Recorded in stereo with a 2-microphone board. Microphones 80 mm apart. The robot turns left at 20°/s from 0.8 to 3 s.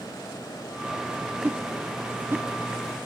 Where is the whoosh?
20° right (ahead or behind), 0.6 m; by 2.5 s 25° right (ahead or behind), 0.6 m.